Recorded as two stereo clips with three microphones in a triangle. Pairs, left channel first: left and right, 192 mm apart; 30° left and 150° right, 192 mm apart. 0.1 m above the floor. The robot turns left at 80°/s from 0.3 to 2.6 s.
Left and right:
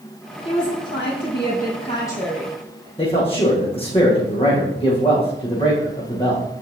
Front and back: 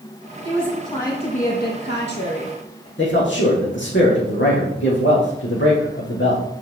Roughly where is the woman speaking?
Behind left.